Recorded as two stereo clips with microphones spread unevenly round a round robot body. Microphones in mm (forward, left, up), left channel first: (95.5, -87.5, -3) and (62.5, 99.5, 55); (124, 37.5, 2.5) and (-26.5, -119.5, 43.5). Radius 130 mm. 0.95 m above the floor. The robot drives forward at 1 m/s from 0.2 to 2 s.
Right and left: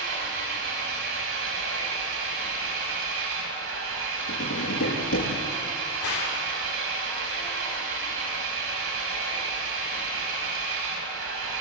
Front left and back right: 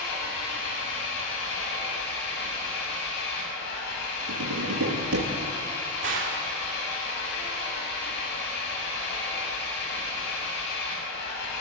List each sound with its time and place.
0.0 s an engine running: 80° left, 6 m; by 11.6 s 95° left, 6 m
4.3 s tapping: 115° right, 7.5 m
6.0 s a gunshot: 100° right, 3.5 m